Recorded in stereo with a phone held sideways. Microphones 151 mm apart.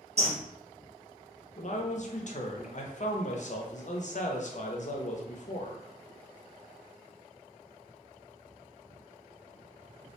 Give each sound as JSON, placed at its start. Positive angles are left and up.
{"t": 0.2, "sound": "a bird", "side_deg": -45, "distance_m": 0.9}
{"t": 1.6, "sound": "a man speaking", "side_deg": 55, "distance_m": 0.5}